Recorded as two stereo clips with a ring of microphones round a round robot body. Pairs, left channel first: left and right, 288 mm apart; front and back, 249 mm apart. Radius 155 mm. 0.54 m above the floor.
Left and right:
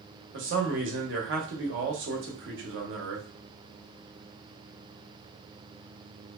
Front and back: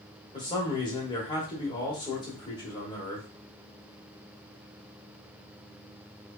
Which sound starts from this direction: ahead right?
A man speaking, at 0.3 s.